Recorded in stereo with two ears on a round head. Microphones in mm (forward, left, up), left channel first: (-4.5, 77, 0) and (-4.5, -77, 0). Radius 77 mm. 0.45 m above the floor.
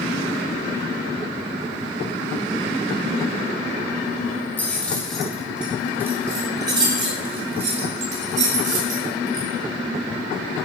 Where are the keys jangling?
10° left (ahead or behind), 2 m; by 9.5 s 55° right (ahead or behind), 3 m.